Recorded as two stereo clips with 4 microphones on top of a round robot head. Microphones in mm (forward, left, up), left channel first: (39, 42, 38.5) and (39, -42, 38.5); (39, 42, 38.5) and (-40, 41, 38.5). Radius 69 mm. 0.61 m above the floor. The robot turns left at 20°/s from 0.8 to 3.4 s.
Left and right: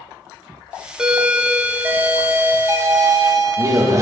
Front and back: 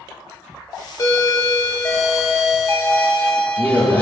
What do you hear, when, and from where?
1.0 s a doorbell: 15° right, 1.3 m; by 4.0 s 65° right, 1.3 m